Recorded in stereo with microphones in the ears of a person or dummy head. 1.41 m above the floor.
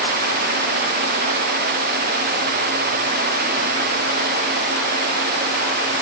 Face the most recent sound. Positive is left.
No sound to turn to.